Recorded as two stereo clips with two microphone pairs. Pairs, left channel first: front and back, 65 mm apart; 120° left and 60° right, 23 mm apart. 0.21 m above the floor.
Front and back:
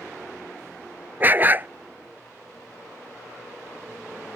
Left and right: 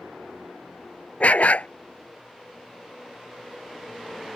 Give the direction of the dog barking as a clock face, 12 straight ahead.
8 o'clock.